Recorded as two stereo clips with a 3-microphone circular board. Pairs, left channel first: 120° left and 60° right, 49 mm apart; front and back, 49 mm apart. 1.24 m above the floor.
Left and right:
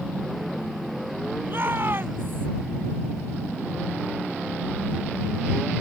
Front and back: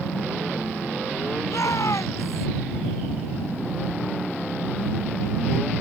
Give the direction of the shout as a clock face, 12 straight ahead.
1 o'clock.